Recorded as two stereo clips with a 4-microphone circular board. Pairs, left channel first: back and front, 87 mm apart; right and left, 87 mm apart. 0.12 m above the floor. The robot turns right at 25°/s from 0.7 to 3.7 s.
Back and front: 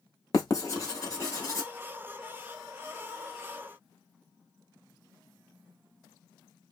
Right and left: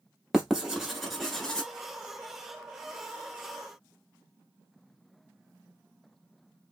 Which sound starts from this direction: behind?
Writing, at 0.3 s.